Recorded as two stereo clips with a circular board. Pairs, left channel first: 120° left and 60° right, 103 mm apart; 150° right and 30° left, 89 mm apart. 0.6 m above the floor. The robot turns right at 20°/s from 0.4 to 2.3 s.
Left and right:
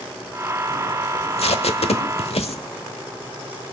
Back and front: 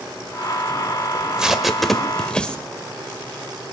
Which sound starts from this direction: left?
Tape being pulled, at 1.1 s.